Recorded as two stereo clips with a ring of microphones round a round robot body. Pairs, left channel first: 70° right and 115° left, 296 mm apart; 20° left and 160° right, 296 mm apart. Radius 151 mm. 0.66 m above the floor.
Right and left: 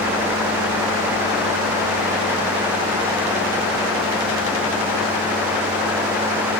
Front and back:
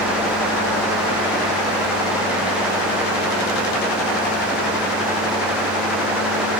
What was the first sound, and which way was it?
Only background noise.